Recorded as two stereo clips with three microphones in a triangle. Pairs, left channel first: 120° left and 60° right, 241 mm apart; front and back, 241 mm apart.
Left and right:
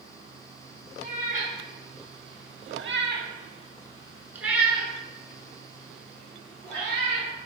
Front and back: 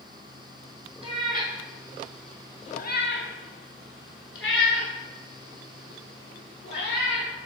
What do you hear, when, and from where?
1.0 s a cat meowing: 115° right, 1.1 m; by 7.3 s 40° left, 2.5 m